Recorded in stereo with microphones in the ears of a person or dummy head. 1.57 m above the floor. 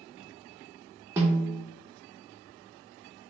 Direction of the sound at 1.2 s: 10° right (ahead or behind).